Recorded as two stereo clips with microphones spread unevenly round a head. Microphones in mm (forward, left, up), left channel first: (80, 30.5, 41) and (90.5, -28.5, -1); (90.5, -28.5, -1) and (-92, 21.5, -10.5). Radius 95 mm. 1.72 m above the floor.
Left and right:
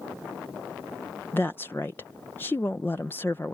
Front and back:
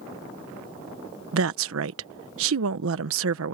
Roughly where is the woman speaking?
Behind left.